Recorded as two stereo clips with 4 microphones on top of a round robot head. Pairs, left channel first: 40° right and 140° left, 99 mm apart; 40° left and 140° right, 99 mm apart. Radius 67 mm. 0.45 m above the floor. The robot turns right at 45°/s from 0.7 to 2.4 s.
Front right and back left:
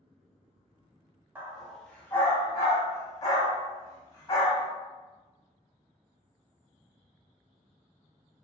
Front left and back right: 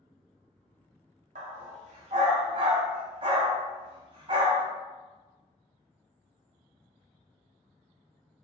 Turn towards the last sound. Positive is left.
turn(degrees=-95)